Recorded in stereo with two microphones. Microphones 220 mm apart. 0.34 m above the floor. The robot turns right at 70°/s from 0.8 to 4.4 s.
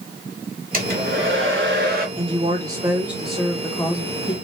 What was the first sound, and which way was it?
A hair dryer, 135° right.